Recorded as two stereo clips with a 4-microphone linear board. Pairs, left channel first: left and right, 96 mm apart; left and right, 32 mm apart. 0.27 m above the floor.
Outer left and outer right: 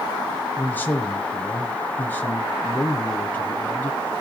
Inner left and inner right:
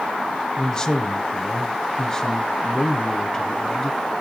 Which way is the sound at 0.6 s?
20° left (ahead or behind).